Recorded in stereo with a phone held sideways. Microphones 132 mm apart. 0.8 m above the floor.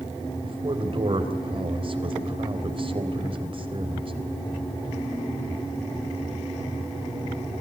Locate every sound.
0.4 s a man speaking: 45° right (ahead or behind), 3.5 m